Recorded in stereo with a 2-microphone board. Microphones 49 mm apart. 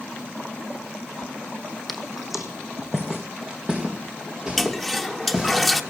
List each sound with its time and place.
1.9 s footsteps: centre (ahead or behind), 1.2 m; by 5.6 s 20° right (ahead or behind), 5 m
4.6 s a toilet flushing: centre (ahead or behind), 0.9 m